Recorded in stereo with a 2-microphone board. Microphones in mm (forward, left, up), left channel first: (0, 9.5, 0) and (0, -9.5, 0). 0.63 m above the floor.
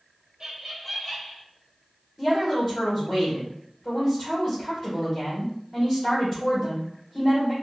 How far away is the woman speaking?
About 2 m.